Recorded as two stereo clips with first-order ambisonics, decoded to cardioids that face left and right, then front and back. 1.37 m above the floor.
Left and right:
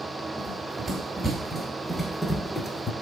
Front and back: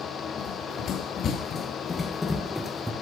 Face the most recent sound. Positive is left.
turn(degrees=105)